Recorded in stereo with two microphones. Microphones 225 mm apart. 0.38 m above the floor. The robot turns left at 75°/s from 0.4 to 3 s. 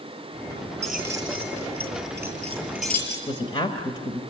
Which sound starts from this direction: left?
A woman speaking, at 3.3 s.